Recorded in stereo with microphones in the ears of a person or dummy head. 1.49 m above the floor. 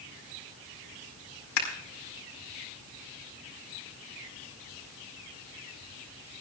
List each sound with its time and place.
1.6 s scissors: 80° left, 4.5 m